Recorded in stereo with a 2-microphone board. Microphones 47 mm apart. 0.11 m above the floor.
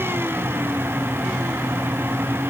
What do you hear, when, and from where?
Only background noise.